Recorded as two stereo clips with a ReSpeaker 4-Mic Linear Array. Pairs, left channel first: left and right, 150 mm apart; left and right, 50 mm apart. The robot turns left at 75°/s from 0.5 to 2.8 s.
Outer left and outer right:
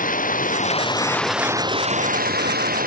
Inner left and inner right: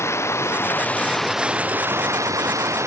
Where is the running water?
60° left; by 2.9 s 115° right.